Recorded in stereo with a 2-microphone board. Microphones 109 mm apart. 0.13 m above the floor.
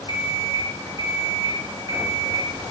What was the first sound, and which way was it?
An alarm clock, 50° left (ahead or behind).